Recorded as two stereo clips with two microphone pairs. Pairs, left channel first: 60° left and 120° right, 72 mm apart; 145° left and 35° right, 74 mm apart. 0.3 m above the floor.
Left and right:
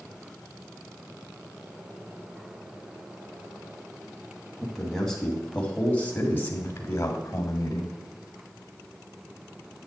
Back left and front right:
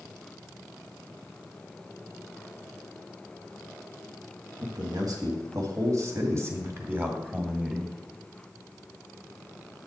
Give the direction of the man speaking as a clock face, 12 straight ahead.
1 o'clock.